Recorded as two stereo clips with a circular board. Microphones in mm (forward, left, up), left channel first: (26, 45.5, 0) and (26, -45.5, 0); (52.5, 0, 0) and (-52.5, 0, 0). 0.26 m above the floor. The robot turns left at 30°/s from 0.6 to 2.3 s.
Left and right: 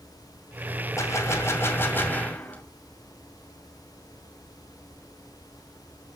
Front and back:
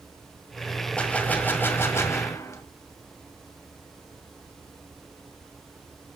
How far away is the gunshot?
About 1.8 m.